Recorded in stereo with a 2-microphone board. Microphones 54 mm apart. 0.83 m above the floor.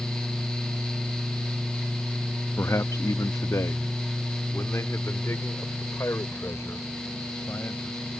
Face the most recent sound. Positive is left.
turn(degrees=55)  # may be behind; listen again after turning